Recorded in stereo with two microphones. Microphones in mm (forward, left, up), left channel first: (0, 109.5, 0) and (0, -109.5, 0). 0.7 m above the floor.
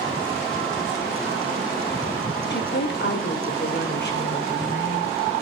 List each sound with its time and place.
2.5 s a woman speaking: 55° left (ahead or behind), 2.0 m; by 5.3 s 50° left (ahead or behind), 4.5 m